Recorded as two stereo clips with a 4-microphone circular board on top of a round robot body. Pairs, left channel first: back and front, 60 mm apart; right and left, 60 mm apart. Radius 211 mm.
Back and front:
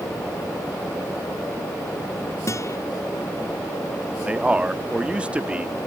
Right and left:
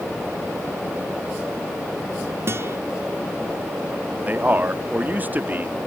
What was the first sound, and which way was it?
A guitar, 140° left.